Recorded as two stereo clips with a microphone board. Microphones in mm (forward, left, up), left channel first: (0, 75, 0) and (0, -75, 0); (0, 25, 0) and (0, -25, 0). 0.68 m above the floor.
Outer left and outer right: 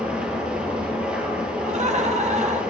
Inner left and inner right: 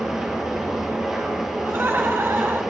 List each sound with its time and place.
0.0 s an engine running: 10° right (ahead or behind), 3.5 m
1.6 s laughter: 50° right (ahead or behind), 1.3 m